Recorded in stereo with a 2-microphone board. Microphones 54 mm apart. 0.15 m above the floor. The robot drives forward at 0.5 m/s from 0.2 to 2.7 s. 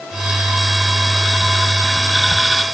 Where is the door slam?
No door slam in this recording.